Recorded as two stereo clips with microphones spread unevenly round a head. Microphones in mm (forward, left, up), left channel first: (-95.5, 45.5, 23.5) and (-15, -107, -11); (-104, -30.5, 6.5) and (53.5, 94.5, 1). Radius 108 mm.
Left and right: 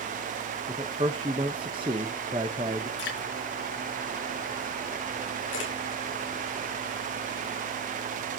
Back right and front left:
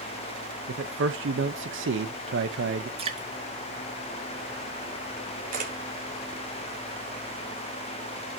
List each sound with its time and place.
0.7 s a man speaking: 10° left, 1.1 m
3.0 s dripping: 100° left, 5.5 m
5.5 s a camera shutter: 85° left, 4.5 m